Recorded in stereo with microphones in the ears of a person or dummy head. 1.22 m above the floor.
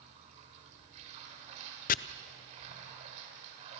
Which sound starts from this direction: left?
Chopping, at 1.9 s.